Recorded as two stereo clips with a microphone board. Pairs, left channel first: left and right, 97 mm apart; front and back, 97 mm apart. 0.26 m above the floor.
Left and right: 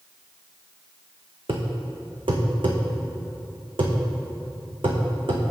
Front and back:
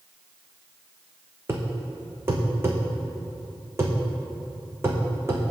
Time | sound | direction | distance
1.5 | a thud | 115° right | 1.6 m